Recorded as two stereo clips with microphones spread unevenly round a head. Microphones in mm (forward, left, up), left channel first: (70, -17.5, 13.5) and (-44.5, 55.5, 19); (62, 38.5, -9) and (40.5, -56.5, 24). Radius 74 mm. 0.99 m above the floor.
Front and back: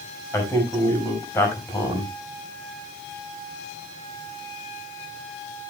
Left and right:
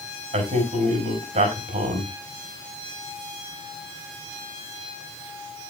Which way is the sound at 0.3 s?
105° right.